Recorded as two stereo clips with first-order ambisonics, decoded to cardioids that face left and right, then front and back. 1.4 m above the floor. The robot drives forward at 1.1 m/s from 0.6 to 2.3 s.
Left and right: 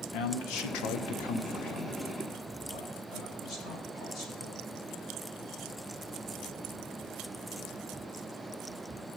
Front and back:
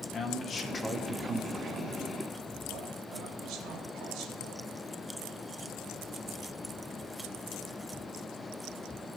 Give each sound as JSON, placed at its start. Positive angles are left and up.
{"t": 0.1, "sound": "a man speaking", "azimuth_deg": 65, "distance_m": 1.0}